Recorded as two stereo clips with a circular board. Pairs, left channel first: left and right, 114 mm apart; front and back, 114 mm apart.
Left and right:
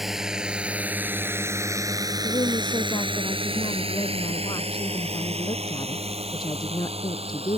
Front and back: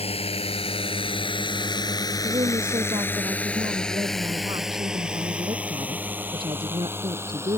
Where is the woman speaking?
135° left.